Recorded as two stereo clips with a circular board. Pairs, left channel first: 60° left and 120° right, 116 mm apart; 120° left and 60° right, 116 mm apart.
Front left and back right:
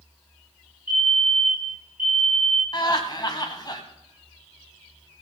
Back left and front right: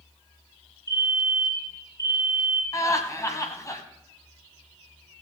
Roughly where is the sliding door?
I don't hear a sliding door.